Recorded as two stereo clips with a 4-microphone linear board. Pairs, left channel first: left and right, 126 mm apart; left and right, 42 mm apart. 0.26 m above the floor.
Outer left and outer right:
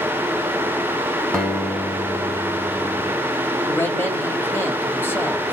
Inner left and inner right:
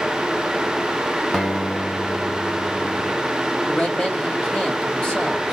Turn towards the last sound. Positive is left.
turn(degrees=15)  # may be behind; listen again after turning